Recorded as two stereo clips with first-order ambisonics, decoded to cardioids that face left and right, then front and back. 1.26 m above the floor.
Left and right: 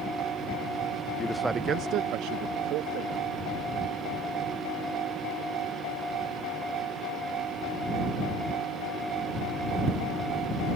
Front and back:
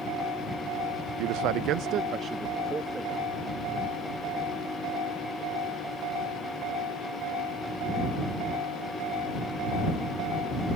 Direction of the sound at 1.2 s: 160° left.